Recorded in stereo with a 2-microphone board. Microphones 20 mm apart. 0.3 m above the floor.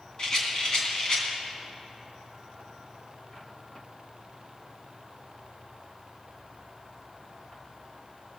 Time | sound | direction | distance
0.2 | a rattle | 40° left (ahead or behind) | 2.5 m